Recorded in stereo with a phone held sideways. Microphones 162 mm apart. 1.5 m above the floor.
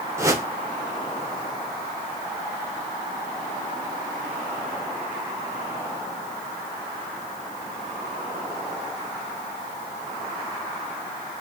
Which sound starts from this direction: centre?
A whoosh, at 0.2 s.